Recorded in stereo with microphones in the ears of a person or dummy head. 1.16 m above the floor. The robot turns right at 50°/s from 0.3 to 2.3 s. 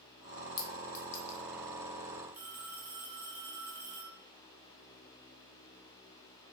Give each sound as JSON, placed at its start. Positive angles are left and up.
{"t": 0.6, "sound": "a clink", "side_deg": 25, "distance_m": 0.9}
{"t": 2.3, "sound": "a phone ringing", "side_deg": -10, "distance_m": 0.6}